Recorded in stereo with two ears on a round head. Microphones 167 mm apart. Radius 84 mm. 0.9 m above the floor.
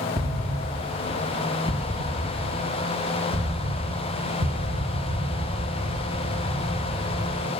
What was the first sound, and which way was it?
An explosion, 20° right (ahead or behind).